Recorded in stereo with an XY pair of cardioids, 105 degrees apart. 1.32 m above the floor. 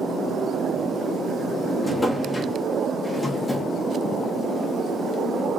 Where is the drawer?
10° left, 1.2 m.